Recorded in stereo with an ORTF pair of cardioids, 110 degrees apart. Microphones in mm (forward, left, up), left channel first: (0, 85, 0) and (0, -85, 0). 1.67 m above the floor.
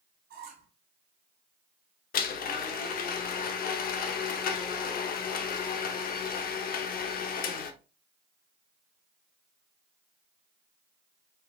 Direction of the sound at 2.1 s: 55° left.